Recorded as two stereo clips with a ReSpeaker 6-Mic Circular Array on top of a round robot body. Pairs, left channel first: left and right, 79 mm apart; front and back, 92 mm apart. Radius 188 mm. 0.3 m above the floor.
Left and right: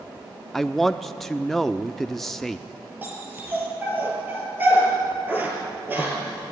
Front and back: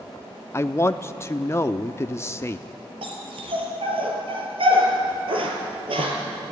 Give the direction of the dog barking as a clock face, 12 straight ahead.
5 o'clock.